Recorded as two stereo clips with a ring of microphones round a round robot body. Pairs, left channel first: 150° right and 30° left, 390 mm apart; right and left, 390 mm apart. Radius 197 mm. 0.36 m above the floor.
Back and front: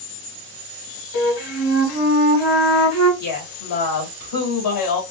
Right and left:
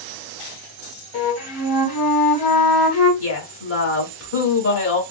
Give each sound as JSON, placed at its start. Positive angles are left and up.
{"t": 1.1, "sound": "a flute", "azimuth_deg": -110, "distance_m": 1.8}
{"t": 3.2, "sound": "a woman speaking", "azimuth_deg": -140, "distance_m": 1.4}